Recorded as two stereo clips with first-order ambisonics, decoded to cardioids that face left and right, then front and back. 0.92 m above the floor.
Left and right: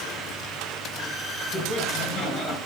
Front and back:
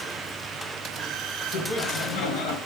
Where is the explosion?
I don't hear an explosion.